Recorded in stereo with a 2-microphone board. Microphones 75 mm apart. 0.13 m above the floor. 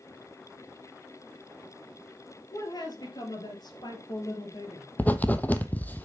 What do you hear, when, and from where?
2.5 s a woman speaking: 60° left (ahead or behind), 3 m; by 4.9 s 50° left (ahead or behind), 3.5 m
5.0 s writing: 20° left (ahead or behind), 0.8 m